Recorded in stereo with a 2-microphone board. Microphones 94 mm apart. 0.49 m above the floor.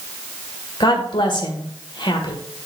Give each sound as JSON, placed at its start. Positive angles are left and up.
{"t": 0.8, "sound": "a woman speaking", "side_deg": 55, "distance_m": 1.7}